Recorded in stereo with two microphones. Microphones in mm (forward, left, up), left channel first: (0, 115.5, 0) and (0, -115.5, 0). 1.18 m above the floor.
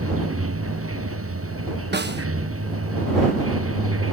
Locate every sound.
0.0 s running water: 75° right (ahead or behind)
1.9 s a snare drum: 50° right (ahead or behind)